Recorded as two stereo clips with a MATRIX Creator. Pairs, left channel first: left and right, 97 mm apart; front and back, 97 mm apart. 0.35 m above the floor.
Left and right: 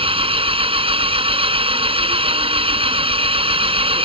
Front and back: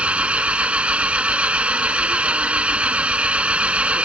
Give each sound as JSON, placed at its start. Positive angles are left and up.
{"t": 0.0, "sound": "an engine running", "azimuth_deg": -100}